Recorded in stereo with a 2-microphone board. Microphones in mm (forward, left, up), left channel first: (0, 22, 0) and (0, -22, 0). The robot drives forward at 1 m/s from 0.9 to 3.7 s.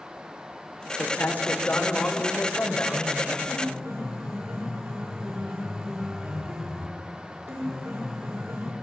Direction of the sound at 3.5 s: 70° right (ahead or behind).